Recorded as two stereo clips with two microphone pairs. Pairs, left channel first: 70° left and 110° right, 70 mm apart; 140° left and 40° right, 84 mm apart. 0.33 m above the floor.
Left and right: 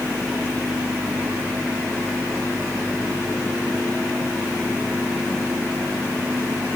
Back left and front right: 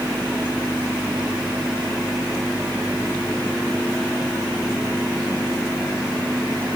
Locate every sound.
Only background noise.